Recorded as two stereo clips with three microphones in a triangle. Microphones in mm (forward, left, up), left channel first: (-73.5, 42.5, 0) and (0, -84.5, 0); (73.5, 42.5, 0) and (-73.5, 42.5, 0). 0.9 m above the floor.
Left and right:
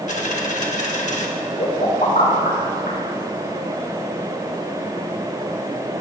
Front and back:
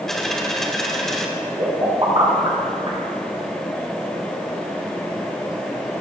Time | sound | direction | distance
0.1 | a dropped coin | 85° left | 1.4 m
1.6 | a pop | 125° left | 4.5 m